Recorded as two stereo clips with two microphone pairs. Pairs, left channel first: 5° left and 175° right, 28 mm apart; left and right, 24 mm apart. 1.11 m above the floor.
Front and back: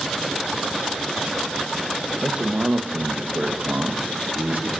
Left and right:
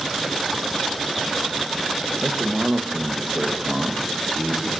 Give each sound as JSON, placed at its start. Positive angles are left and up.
{"t": 2.2, "sound": "a man speaking", "azimuth_deg": -125, "distance_m": 0.8}